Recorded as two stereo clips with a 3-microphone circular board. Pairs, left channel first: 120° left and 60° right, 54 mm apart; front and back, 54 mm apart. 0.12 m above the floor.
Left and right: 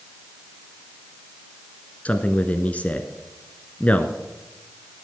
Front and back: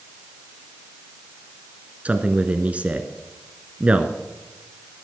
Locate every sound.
2.0 s a man speaking: 150° left, 1.2 m